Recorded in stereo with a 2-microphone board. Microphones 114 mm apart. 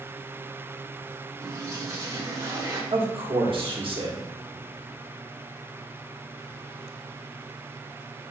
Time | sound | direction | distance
1.4 | a toilet flushing | 25° right (ahead or behind) | 1.1 m
2.9 | a man speaking | 50° right (ahead or behind) | 1.2 m